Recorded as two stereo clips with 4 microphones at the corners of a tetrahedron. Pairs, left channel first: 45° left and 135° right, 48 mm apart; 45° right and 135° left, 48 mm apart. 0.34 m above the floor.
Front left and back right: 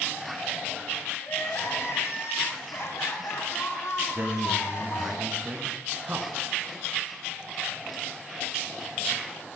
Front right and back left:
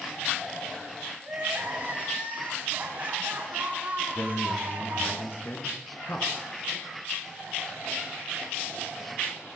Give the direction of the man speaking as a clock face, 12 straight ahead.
3 o'clock.